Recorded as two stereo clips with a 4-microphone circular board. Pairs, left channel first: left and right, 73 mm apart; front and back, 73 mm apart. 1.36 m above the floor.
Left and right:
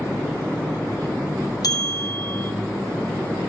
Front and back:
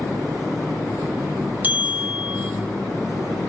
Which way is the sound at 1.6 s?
115° left.